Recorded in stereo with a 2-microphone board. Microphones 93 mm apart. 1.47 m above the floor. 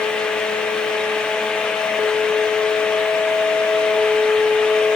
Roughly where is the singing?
No singing in this recording.